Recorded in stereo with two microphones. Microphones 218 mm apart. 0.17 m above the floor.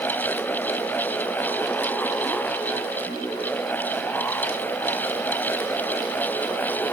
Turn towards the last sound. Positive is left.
No sound to turn to.